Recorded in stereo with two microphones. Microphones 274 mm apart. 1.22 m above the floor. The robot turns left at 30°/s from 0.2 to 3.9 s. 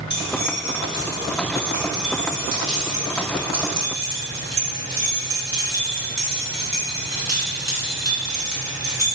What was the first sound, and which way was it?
Keys jangling, 40° left (ahead or behind).